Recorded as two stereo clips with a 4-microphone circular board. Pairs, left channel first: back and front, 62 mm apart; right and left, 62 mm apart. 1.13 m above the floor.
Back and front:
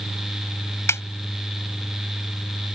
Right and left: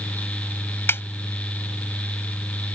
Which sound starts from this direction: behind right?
A snare drum, at 0.9 s.